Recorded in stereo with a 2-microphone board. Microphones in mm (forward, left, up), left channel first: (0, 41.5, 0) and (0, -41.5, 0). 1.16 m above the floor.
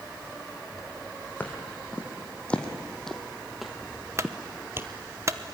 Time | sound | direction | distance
1.4 | footsteps | 20° left (ahead or behind) | 3 m
4.2 | a clunk | 35° right (ahead or behind) | 0.9 m